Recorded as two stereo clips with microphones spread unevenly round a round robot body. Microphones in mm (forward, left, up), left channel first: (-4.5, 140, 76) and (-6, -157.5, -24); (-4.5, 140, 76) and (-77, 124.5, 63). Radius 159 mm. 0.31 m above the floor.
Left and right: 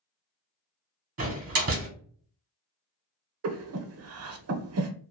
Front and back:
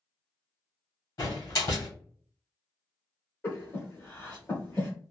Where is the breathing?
60° right, 0.7 m.